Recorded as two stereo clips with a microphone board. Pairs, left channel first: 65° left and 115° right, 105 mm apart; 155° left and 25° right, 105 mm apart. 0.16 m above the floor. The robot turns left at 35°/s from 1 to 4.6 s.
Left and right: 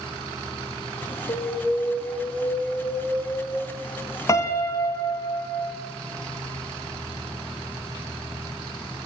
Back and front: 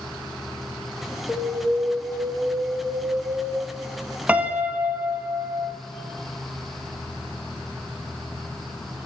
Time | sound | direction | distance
1.3 | an alarm | 80° left | 1.8 m
4.3 | a piano | 45° left | 0.6 m